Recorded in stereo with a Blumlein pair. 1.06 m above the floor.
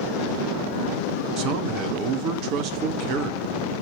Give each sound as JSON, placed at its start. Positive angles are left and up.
{"t": 1.4, "sound": "a man speaking", "azimuth_deg": -40, "distance_m": 1.3}